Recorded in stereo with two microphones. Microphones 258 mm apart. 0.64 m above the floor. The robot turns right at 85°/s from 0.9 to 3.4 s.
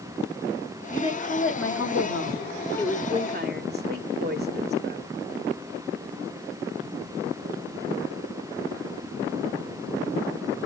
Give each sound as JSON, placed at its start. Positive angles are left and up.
{"t": 0.9, "sound": "a woman speaking", "azimuth_deg": 10, "distance_m": 1.5}